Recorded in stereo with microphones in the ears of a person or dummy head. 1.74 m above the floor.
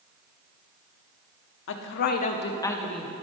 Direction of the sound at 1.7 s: 70° left (ahead or behind).